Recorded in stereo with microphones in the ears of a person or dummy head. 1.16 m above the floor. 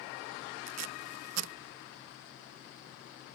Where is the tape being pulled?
70° right (ahead or behind).